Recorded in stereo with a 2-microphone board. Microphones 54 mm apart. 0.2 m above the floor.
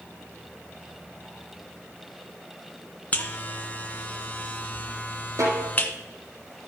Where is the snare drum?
70° right (ahead or behind), 7 m.